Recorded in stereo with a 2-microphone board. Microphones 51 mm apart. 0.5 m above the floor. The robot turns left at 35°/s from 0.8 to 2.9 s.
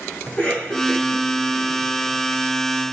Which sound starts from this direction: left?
A cough, at 0.3 s.